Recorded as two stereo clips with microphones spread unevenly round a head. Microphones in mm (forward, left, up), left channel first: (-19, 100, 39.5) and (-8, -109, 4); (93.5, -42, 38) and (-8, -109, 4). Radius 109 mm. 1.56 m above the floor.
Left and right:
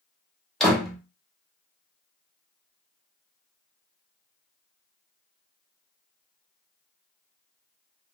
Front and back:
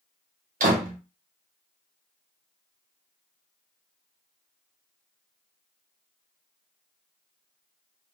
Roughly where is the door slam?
Behind.